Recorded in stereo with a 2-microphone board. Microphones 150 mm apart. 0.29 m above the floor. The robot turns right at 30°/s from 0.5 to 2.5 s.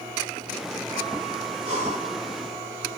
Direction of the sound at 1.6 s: 40° right (ahead or behind).